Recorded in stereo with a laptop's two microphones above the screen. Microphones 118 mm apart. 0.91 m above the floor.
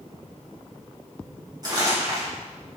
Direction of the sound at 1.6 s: 35° right (ahead or behind).